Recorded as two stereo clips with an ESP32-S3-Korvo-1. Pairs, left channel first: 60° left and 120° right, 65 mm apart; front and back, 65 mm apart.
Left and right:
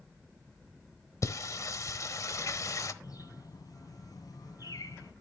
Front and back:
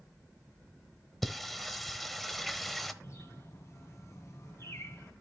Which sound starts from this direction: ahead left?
A bird, at 3.0 s.